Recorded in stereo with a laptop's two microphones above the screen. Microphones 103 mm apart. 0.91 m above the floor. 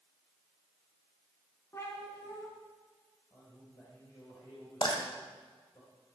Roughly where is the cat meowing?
Left.